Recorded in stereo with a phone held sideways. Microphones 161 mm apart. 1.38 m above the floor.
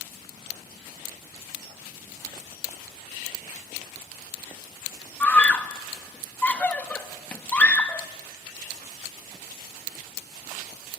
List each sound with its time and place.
5.2 s a scream: 10° left (ahead or behind), 1.7 m